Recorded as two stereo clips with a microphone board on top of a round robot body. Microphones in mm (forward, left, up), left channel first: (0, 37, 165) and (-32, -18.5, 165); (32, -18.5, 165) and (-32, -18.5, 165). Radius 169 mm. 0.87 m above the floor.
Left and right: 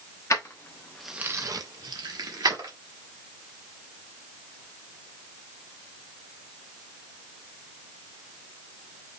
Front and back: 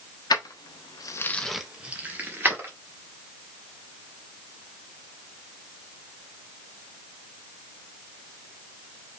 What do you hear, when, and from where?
0.3 s keys jangling: 15° left, 1.1 m; by 2.7 s 125° right, 1.9 m